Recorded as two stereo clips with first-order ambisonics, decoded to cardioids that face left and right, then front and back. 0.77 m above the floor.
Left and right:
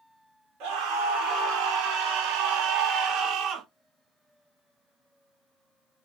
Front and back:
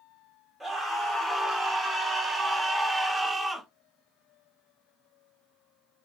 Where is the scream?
100° right, 2.0 m.